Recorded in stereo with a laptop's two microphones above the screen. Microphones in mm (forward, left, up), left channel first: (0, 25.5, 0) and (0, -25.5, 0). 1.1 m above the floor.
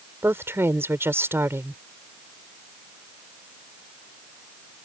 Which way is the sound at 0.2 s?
50° right (ahead or behind).